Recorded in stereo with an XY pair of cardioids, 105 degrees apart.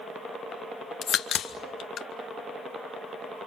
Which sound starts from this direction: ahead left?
A crack, at 1.0 s.